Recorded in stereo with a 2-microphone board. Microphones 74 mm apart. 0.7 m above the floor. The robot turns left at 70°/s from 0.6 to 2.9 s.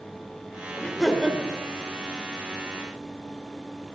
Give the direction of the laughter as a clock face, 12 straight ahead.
11 o'clock.